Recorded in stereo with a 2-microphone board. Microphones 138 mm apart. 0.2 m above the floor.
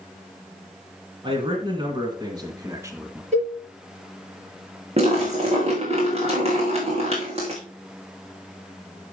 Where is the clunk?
No clunk in this recording.